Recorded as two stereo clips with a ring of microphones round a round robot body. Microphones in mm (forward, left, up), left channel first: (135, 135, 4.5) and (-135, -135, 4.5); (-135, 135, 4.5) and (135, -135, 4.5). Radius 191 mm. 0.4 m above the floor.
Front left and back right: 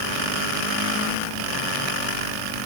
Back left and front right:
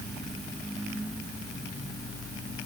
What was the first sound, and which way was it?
Only background noise.